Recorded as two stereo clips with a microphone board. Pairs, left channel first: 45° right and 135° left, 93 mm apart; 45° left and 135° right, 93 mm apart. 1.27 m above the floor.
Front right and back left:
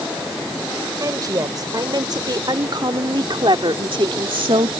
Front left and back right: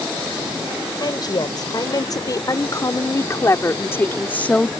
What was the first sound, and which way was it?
A woman speaking, 85° left.